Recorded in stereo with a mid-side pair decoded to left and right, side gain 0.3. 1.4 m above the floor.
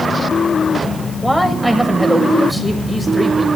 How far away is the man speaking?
About 7.5 m.